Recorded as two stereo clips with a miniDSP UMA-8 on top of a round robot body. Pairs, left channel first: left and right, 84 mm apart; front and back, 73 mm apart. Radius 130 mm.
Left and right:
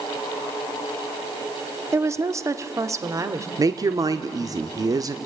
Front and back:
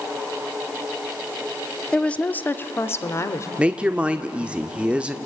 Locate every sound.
1.9 s a woman speaking: 70° right, 1.1 m; by 3.5 s 45° right, 1.8 m
3.6 s a woman speaking: 110° right, 1.0 m